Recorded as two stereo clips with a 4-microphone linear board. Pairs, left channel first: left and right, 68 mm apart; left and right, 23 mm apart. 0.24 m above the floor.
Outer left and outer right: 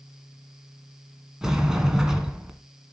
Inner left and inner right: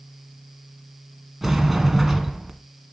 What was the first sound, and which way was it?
A sliding door, 5° right (ahead or behind).